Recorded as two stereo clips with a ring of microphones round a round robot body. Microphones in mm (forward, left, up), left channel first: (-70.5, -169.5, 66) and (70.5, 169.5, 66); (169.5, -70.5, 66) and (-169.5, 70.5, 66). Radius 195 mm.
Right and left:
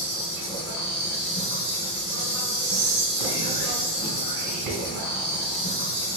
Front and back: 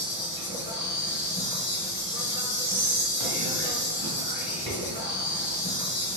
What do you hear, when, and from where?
0.0 s an insect: 75° right, 1.6 m
2.6 s whispering: 50° left, 2.0 m